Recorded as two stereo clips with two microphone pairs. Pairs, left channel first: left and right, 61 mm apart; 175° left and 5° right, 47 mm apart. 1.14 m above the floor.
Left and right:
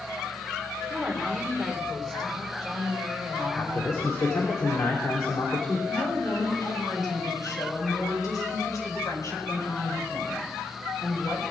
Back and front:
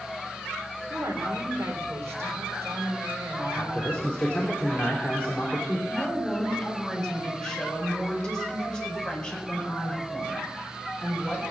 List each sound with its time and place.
0.9 s a woman speaking: straight ahead, 3 m
3.5 s a man speaking: 110° left, 3 m
5.9 s a woman speaking: 100° left, 5 m